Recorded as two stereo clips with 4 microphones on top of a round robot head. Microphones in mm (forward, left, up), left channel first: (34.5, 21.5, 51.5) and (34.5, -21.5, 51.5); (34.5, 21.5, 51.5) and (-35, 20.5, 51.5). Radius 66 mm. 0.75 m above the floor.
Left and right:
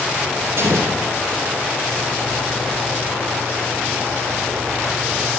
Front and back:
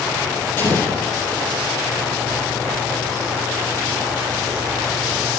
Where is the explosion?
65° right, 3.5 m.